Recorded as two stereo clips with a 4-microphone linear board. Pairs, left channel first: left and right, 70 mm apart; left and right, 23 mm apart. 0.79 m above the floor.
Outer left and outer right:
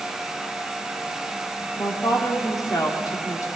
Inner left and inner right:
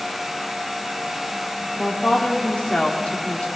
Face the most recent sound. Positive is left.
turn(degrees=55)  # may be behind; listen again after turning